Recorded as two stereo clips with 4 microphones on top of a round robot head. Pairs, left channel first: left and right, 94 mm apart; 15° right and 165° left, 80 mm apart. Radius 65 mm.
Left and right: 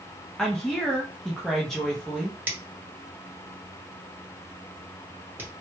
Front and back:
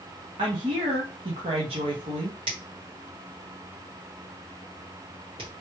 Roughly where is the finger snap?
Behind.